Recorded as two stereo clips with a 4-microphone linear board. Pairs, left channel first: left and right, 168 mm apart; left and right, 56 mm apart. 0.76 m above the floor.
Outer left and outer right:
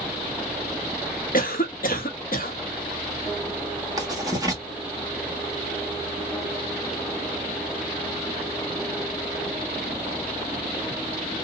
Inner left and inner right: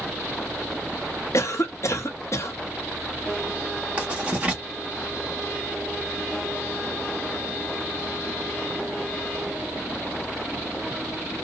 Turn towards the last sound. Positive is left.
turn(degrees=-20)  # may be behind; listen again after turning